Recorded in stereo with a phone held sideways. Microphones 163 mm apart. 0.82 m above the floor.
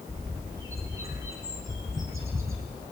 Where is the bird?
15° right (ahead or behind), 2.5 m.